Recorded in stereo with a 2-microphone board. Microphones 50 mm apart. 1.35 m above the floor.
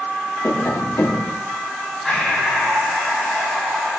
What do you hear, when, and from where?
0.4 s tapping: 80° left, 2.5 m
2.0 s breathing: 5° left (ahead or behind), 7 m